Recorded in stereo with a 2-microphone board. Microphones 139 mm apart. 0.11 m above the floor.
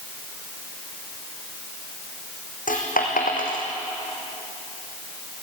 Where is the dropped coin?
80° left, 3 m.